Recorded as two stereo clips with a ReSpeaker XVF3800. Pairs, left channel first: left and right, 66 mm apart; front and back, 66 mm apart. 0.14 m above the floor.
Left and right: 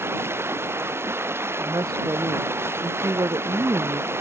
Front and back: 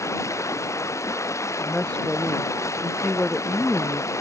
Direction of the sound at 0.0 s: 40° right.